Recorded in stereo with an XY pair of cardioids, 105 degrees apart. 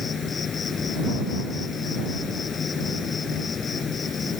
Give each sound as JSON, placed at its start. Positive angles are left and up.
{"t": 0.0, "sound": "an insect", "azimuth_deg": 40}